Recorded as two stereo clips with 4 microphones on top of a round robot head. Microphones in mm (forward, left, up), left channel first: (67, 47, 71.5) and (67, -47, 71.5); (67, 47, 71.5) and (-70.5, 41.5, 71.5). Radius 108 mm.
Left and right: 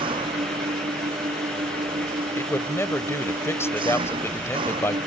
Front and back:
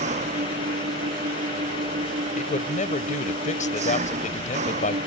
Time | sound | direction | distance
0.0 | an engine running | 135° right | ?
2.4 | a man speaking | 30° left | ?